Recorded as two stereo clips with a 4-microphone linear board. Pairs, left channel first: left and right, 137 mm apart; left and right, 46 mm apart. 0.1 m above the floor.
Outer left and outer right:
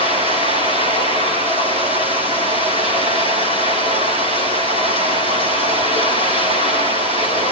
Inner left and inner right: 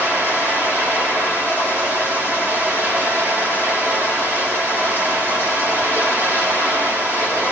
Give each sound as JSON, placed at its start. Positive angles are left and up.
{"t": 0.0, "sound": "running water", "side_deg": -45, "distance_m": 4.0}